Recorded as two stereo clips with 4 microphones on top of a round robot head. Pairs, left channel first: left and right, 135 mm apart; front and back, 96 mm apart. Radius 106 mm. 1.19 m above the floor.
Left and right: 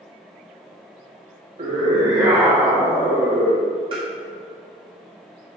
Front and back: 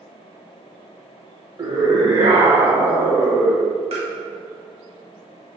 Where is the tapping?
150° right, 1.2 m.